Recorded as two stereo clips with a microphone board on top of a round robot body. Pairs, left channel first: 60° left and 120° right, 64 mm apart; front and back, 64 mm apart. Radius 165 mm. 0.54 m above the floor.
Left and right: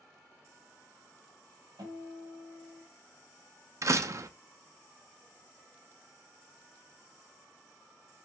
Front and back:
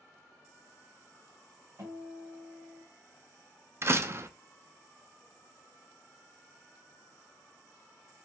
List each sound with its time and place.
1.8 s a guitar: 135° right, 1.9 m
3.8 s a door slam: 140° right, 0.6 m